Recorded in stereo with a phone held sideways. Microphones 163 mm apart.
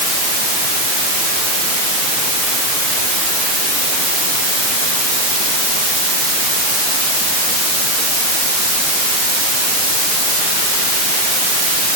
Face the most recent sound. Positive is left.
No sound to turn to.